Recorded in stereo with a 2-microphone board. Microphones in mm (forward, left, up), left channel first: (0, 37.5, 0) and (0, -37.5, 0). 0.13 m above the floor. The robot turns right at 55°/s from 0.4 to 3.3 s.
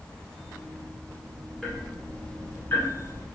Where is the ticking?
5° left (ahead or behind), 1.5 m; by 3.2 s 30° left (ahead or behind), 1.5 m.